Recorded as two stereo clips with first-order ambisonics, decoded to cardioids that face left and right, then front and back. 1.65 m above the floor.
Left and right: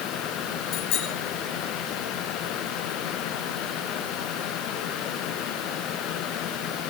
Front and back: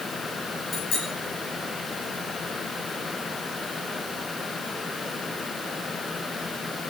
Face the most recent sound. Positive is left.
turn(degrees=55)